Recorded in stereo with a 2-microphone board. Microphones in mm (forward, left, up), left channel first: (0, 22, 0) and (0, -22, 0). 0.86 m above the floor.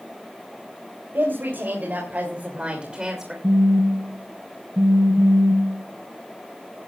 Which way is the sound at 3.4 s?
50° right (ahead or behind).